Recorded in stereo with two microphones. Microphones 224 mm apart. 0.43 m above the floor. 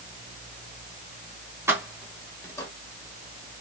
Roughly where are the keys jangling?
Centre.